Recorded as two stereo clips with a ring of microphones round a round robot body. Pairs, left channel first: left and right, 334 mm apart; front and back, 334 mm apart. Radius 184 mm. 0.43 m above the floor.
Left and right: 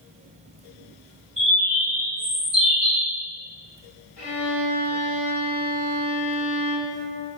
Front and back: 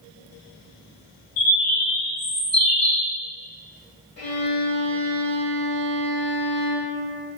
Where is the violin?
30° left, 1.4 m.